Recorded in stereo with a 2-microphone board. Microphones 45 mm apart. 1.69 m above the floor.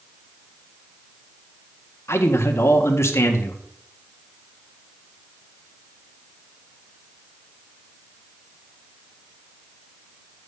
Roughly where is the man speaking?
Left.